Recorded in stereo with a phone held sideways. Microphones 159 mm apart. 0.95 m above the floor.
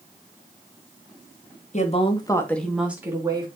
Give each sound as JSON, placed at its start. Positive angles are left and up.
{"t": 1.7, "sound": "a woman speaking", "side_deg": 45, "distance_m": 1.8}